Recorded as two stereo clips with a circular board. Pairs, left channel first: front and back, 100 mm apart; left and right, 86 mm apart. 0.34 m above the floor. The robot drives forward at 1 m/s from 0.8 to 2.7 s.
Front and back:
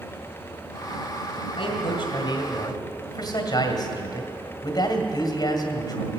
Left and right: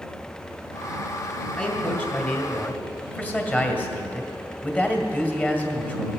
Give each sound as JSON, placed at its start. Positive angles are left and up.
{"t": 1.6, "sound": "a man speaking", "azimuth_deg": 15, "distance_m": 3.0}